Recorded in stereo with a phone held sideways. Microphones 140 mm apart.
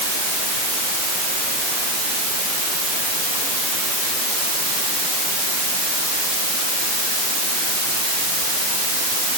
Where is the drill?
I don't hear a drill.